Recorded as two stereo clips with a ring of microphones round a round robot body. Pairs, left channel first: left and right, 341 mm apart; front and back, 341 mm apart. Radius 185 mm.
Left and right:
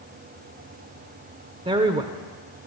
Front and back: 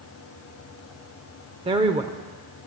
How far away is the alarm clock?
No alarm clock in this recording.